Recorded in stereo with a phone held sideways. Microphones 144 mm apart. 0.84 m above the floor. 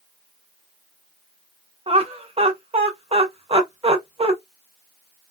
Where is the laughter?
45° right (ahead or behind), 0.7 m.